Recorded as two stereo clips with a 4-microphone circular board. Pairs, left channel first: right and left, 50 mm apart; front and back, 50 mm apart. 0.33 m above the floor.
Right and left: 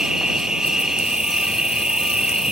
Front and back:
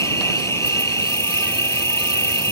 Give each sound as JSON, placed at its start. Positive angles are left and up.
{"t": 0.0, "sound": "an insect", "azimuth_deg": 15}